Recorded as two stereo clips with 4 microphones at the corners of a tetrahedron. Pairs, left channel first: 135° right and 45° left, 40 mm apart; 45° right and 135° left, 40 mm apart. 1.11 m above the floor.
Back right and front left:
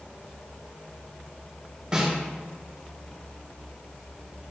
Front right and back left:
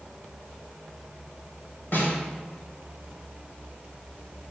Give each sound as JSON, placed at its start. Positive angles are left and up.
{"t": 1.9, "sound": "a snare drum", "azimuth_deg": -20, "distance_m": 2.0}